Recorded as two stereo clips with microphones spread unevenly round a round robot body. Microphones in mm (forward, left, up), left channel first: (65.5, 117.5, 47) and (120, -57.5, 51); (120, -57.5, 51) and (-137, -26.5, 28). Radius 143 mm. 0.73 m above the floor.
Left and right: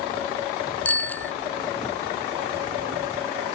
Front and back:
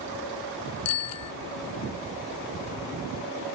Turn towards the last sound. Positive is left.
turn(degrees=25)